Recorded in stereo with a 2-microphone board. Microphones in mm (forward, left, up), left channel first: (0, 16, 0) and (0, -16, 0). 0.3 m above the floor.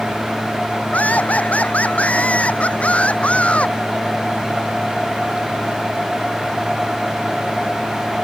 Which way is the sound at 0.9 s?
55° left (ahead or behind).